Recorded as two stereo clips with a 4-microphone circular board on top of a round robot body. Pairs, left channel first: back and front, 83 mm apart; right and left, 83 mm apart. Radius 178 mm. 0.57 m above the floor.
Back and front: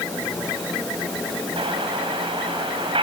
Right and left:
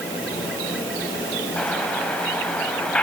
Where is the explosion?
10° right, 5 m.